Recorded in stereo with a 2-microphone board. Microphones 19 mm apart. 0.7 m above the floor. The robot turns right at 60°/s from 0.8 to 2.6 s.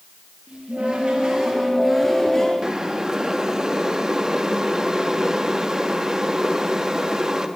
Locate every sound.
0.5 s a cupboard door: 70° right, 5 m; by 2.5 s 35° left, 5 m
2.6 s boiling: 35° right (ahead or behind), 1.3 m